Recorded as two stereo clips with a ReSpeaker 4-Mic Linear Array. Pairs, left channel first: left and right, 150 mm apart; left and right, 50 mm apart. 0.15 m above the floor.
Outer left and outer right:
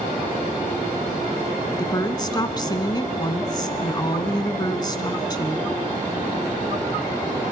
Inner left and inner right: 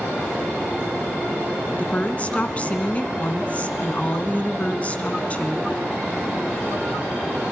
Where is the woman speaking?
30° left (ahead or behind), 1.2 m.